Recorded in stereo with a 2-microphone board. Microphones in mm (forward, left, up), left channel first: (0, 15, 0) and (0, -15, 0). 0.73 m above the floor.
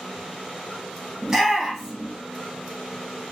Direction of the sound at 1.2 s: 15° right (ahead or behind).